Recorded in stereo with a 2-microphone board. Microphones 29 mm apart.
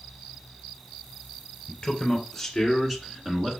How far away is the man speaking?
About 1.4 m.